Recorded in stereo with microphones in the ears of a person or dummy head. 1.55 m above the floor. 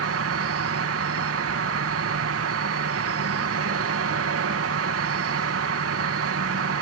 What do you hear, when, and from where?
0.0 s an insect: 70° right (ahead or behind)